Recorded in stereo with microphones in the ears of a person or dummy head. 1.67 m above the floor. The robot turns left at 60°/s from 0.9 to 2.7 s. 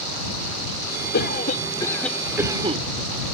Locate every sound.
1.1 s a cough: 60° left; by 2.8 s 30° right